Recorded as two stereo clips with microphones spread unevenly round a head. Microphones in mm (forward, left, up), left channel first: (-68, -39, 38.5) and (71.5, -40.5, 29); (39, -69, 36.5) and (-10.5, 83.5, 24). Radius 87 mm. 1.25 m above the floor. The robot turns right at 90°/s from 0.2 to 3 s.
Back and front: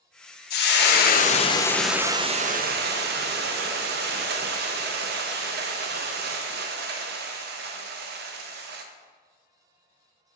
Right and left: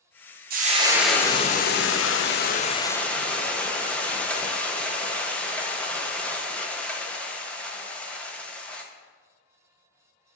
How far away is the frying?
About 0.6 m.